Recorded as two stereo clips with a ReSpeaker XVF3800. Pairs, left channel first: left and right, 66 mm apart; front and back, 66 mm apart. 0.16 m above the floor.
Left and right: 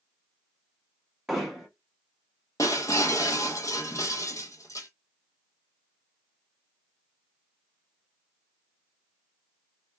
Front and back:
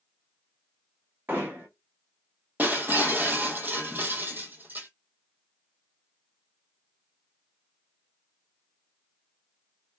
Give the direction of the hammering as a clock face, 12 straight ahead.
6 o'clock.